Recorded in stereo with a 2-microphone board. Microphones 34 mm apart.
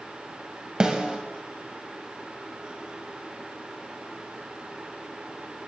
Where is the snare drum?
30° right (ahead or behind), 2.0 m.